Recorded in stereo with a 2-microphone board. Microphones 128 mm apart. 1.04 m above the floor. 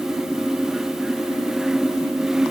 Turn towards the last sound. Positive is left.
No sound to turn to.